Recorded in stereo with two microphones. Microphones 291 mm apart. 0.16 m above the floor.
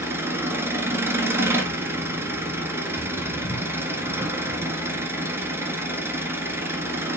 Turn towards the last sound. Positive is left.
turn(degrees=-10)  # may be behind; listen again after turning